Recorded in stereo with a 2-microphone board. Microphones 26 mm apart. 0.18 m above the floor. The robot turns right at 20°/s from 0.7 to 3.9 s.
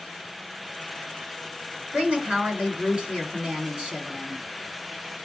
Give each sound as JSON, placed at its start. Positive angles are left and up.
{"t": 1.9, "sound": "a woman speaking", "azimuth_deg": -80, "distance_m": 2.5}